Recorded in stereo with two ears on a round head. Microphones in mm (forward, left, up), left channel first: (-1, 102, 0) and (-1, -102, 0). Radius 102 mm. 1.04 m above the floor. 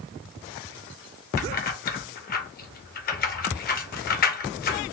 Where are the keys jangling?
40° left (ahead or behind), 0.7 m.